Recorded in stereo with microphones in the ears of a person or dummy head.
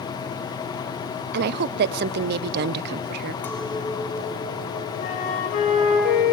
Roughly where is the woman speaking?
Right.